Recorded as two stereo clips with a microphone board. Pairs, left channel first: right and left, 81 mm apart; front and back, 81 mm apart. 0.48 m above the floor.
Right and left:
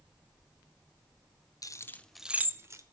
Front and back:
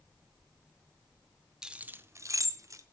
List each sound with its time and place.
1.6 s keys jangling: 100° right, 0.6 m; by 2.8 s 135° left, 0.9 m